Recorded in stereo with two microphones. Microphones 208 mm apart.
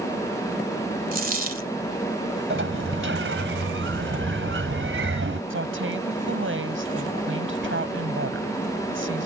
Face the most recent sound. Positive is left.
turn(degrees=-80)